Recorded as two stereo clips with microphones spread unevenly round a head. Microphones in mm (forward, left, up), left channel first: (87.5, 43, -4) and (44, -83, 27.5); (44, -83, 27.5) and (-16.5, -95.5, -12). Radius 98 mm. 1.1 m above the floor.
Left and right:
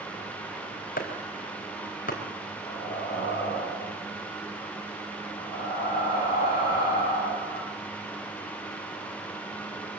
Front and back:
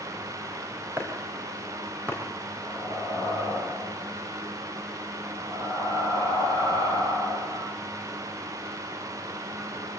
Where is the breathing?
140° left, 4.5 m.